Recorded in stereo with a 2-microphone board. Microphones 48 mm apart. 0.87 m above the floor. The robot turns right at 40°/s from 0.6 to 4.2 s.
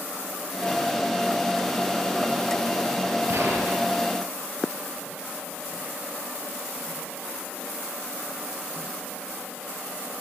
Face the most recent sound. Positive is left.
turn(degrees=-30)